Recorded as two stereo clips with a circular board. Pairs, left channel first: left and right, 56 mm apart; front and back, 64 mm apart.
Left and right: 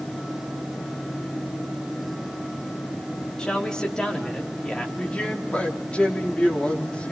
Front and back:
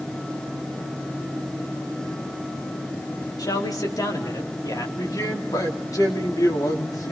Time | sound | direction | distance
3.4 | a man speaking | 15° left | 4 m
5.0 | a man speaking | 20° left | 4 m